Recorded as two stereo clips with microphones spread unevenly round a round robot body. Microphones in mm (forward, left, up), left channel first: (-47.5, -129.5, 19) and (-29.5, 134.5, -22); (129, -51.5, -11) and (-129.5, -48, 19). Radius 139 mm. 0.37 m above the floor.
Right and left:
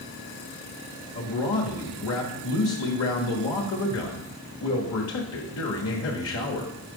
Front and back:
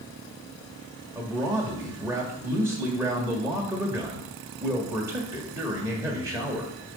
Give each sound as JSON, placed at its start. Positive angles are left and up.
{"t": 1.1, "sound": "a man speaking", "azimuth_deg": -100, "distance_m": 1.3}